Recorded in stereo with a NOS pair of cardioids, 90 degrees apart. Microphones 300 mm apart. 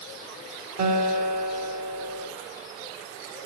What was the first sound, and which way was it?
A guitar, 70° right.